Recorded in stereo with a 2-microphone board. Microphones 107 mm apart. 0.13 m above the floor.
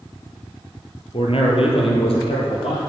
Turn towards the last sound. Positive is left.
turn(degrees=60)  # may be behind; listen again after turning